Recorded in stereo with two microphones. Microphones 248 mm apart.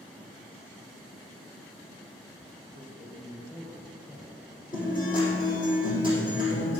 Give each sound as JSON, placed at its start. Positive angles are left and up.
{"t": 2.7, "sound": "a man speaking", "side_deg": 15, "distance_m": 4.0}
{"t": 4.7, "sound": "a guitar", "side_deg": 35, "distance_m": 5.5}